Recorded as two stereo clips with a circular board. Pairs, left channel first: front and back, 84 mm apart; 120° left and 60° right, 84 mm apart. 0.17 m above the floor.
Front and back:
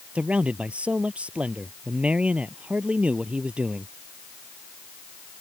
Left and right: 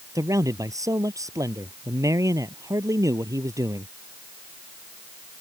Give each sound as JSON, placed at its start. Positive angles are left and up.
{"t": 0.1, "sound": "a man speaking", "azimuth_deg": -105}